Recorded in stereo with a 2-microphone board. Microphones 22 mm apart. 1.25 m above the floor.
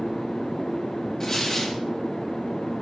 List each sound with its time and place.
1.2 s tearing paper: 20° left (ahead or behind), 1.3 m